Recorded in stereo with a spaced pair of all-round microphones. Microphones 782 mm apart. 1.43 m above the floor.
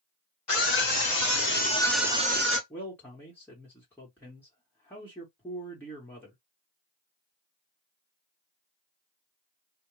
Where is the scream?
45° left (ahead or behind), 1.1 m; by 2.6 s 20° right (ahead or behind), 1.0 m.